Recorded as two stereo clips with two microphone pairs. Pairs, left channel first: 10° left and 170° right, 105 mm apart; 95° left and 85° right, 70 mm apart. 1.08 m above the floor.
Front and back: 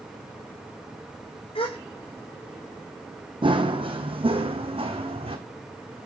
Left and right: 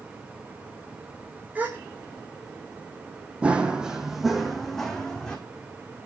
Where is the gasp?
15° right, 4 m.